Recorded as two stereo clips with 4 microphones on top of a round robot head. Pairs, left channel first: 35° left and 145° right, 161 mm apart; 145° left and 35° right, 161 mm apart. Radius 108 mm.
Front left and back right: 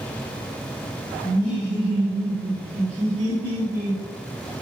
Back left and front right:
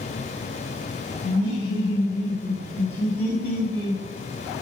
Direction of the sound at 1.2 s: 110° left.